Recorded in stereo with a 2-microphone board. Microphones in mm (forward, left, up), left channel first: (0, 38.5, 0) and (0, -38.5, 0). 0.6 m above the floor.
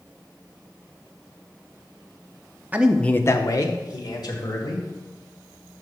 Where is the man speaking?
20° right (ahead or behind), 0.6 m; by 4.9 s 65° left (ahead or behind), 2.5 m.